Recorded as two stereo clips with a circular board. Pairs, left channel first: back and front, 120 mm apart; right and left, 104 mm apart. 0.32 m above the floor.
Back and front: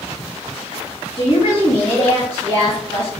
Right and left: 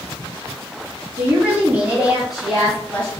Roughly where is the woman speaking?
Behind left.